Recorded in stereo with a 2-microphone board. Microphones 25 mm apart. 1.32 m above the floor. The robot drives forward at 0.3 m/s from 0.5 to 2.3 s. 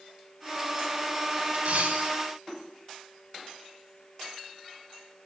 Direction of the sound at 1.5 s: 80° right.